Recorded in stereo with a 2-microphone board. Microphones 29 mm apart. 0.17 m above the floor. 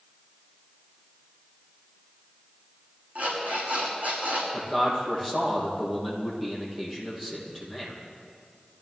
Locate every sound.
3.1 s an alarm clock: 70° right (ahead or behind), 6 m
4.5 s a man speaking: 5° right (ahead or behind), 5.5 m